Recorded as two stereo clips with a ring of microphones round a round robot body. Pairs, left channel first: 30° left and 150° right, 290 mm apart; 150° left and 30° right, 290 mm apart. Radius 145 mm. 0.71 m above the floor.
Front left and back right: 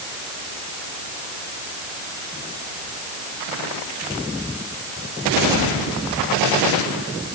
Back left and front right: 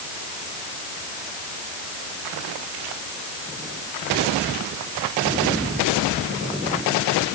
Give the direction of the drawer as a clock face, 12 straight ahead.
No drawer in this recording.